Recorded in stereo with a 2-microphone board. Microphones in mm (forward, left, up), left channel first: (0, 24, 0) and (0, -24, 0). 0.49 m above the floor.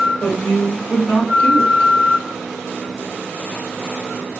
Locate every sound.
0.2 s a woman speaking: 35° left (ahead or behind), 1.1 m